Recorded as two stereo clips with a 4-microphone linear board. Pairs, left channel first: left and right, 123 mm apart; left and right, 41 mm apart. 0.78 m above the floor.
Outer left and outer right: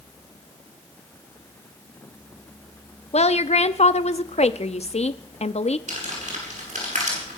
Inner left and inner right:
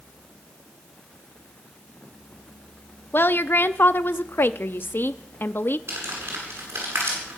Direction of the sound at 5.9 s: 75° right (ahead or behind).